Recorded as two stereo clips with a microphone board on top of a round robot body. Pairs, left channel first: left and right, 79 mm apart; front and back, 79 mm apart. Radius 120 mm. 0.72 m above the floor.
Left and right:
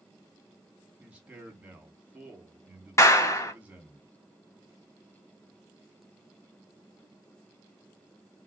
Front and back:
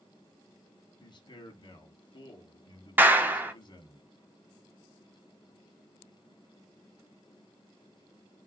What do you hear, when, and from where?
1.0 s a man speaking: 15° right, 1.6 m
3.0 s a clap: 125° left, 1.0 m